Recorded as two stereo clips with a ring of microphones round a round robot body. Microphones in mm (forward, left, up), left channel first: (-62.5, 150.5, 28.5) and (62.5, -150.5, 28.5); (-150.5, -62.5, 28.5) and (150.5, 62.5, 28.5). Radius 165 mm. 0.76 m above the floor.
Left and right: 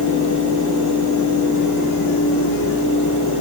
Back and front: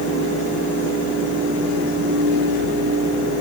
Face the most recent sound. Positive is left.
No sound to turn to.